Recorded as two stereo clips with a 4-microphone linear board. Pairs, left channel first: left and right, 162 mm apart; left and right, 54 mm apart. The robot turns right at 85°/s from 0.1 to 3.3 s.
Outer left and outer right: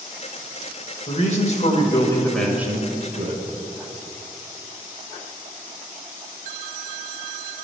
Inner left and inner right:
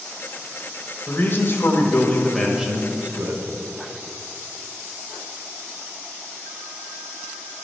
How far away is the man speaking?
About 1.3 m.